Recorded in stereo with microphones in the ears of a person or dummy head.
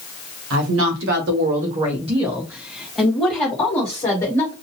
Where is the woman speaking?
75° right (ahead or behind), 1.2 m; by 4.5 s 30° left (ahead or behind), 1.8 m.